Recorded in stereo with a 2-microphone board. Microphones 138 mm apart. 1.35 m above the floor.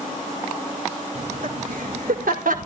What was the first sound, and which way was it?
Laughter, 90° right.